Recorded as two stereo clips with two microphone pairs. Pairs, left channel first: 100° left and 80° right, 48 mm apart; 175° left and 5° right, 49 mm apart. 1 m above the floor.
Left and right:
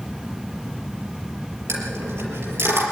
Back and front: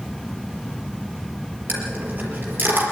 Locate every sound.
1.7 s a dropped coin: 60° right, 5 m